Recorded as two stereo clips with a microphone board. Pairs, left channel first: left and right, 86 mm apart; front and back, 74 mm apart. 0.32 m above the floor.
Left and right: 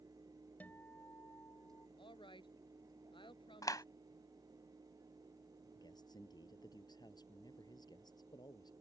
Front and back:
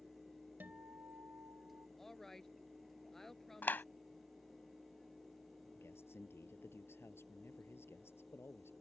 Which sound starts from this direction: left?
A woman speaking, at 2.0 s.